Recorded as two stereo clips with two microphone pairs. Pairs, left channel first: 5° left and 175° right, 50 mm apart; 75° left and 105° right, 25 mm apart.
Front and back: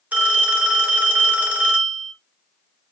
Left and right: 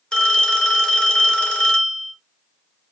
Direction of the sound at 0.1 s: 125° left.